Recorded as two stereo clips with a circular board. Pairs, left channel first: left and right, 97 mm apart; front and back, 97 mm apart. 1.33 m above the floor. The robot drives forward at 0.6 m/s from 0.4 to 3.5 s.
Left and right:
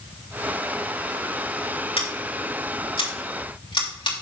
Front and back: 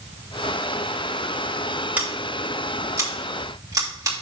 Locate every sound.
2.0 s scissors: 105° left, 2.5 m; by 4.1 s 125° left, 3 m